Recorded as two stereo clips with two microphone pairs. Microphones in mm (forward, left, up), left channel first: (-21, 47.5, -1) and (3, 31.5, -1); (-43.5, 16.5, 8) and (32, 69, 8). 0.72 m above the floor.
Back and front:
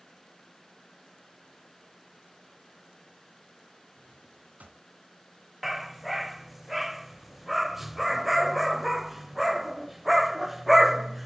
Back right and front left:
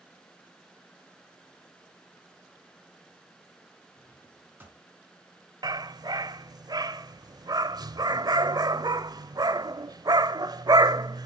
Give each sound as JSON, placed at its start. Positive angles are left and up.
{"t": 4.0, "sound": "a drawer", "azimuth_deg": -30, "distance_m": 3.5}
{"t": 5.6, "sound": "a dog barking", "azimuth_deg": 55, "distance_m": 0.6}